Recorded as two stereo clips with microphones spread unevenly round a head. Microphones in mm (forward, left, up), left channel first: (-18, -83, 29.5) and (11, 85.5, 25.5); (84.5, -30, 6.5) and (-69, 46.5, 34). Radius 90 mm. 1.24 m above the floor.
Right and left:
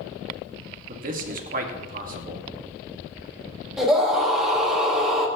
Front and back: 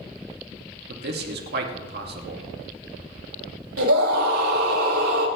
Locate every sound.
0.9 s a man speaking: 125° left, 2 m
3.8 s a scream: 170° left, 5 m